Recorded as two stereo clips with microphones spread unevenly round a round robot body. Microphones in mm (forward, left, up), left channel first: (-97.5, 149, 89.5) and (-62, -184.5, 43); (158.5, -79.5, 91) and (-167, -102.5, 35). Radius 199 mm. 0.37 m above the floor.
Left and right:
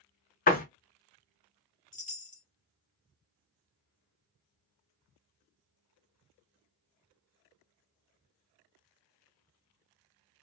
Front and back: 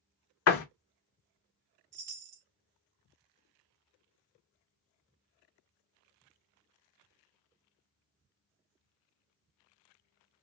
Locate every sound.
0.5 s a door slam: 35° left, 0.6 m
1.9 s a chime: 165° left, 0.7 m